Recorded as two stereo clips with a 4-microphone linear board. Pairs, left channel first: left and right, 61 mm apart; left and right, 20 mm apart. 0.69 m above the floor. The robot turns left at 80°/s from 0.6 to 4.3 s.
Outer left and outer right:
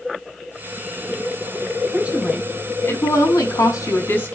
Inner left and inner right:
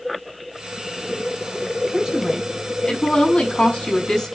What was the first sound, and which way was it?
A woman speaking, 150° right.